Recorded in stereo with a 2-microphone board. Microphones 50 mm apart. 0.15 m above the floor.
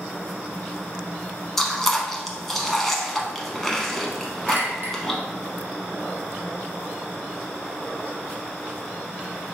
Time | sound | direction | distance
1.6 | chewing | 5° left (ahead or behind) | 0.7 m
4.5 | a clink | 45° right (ahead or behind) | 1.3 m